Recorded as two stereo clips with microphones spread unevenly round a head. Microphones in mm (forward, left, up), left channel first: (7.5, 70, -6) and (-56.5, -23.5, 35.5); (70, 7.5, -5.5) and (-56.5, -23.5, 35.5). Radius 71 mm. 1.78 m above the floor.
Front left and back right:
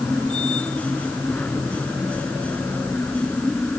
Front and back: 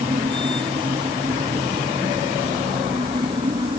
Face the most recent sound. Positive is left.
turn(degrees=140)